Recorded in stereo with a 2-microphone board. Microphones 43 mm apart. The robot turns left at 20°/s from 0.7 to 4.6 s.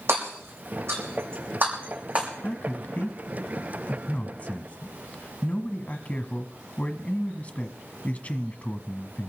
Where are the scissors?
No scissors in this recording.